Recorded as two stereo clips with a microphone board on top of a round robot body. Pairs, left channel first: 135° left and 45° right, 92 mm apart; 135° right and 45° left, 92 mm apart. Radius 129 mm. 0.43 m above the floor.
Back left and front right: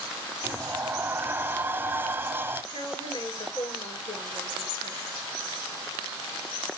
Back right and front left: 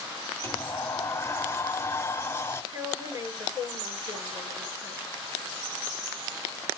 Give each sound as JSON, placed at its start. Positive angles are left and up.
{"t": 0.4, "sound": "a sliding door", "azimuth_deg": -95, "distance_m": 1.0}
{"t": 2.7, "sound": "a woman speaking", "azimuth_deg": 105, "distance_m": 9.0}